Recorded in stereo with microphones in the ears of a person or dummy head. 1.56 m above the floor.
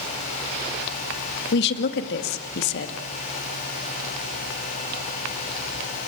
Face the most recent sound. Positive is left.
turn(degrees=60)  # may be behind; listen again after turning